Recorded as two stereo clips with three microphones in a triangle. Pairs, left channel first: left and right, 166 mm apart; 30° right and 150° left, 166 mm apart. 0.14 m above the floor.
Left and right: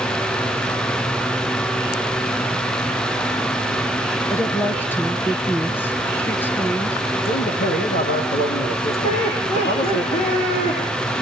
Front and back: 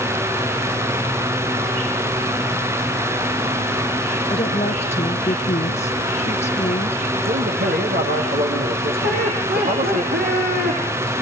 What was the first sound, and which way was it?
A woman speaking, 10° left.